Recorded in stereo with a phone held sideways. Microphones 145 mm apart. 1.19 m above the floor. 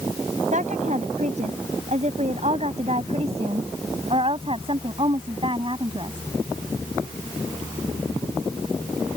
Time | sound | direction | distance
0.5 | a woman speaking | 55° right (ahead or behind) | ?